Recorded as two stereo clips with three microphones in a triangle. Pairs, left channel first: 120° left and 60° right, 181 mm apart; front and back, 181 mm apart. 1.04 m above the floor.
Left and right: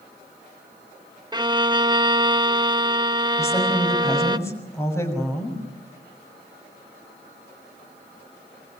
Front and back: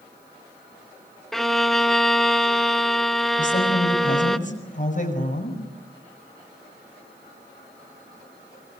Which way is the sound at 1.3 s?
85° right.